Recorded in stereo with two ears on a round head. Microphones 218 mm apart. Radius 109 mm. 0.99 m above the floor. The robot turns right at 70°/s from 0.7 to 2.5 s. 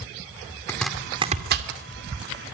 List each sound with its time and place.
0.7 s chopping: 10° left (ahead or behind), 2.5 m; by 1.7 s 60° right (ahead or behind), 2.5 m